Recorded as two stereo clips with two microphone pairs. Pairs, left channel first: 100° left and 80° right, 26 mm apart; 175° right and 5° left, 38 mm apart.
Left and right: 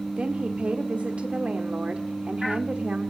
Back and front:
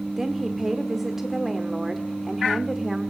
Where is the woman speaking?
75° right, 1.4 m.